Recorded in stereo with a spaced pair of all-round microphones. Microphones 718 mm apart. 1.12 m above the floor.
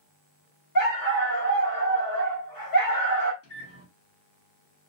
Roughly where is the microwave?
Centre.